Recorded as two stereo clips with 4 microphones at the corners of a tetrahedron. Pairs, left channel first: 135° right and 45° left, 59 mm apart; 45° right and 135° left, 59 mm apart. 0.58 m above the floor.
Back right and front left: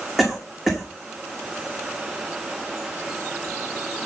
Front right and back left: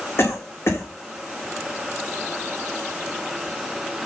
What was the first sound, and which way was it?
A cough, 45° right.